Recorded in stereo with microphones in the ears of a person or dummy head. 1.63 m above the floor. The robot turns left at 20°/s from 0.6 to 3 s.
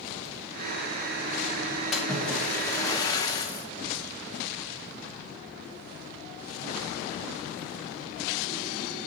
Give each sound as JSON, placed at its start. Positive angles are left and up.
{"t": 1.9, "sound": "a splash", "side_deg": -5, "distance_m": 0.9}